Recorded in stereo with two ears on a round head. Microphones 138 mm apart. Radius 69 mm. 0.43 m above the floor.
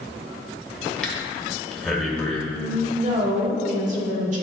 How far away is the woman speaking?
About 1.1 m.